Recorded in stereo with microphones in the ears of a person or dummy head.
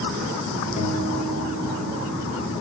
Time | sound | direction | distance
0.8 | a guitar | 30° left (ahead or behind) | 2 m